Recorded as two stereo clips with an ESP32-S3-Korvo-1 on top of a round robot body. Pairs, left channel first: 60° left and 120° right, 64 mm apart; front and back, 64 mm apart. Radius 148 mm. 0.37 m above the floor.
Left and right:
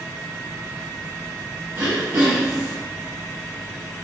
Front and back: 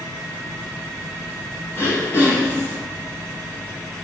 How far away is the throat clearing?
About 6.5 m.